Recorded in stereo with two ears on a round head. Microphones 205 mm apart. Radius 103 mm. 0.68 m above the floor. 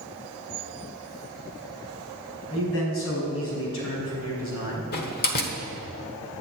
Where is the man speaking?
70° left (ahead or behind), 5.5 m.